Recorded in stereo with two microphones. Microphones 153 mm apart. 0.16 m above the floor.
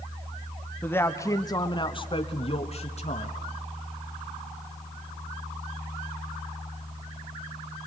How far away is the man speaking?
About 1.2 m.